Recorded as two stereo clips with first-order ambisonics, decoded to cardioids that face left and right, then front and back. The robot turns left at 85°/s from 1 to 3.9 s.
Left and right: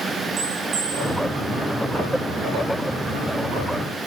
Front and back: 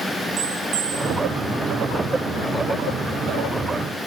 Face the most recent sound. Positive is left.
turn(degrees=-30)